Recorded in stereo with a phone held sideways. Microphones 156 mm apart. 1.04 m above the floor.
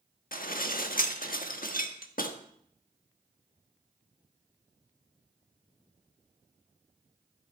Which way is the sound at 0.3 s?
65° left (ahead or behind).